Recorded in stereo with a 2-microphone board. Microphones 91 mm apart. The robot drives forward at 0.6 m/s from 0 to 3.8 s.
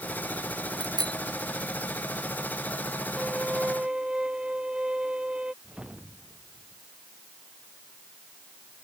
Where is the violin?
10° right (ahead or behind).